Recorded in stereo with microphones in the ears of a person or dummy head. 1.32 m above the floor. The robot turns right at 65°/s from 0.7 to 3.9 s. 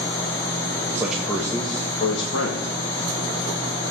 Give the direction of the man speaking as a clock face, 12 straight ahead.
1 o'clock.